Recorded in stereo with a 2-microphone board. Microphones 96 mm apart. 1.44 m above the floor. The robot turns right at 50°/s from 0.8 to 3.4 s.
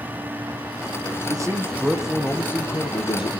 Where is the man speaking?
40° right, 1.4 m; by 3.4 s 65° left, 1.4 m.